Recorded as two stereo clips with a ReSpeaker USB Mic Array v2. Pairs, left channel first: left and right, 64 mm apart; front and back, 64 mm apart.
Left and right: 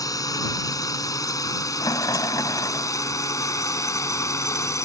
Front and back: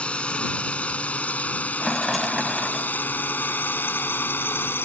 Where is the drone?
70° left; by 4.9 s 55° left.